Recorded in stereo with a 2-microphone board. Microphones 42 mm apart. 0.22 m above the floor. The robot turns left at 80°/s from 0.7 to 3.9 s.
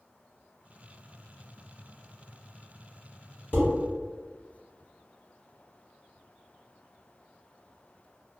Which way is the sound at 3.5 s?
60° left (ahead or behind).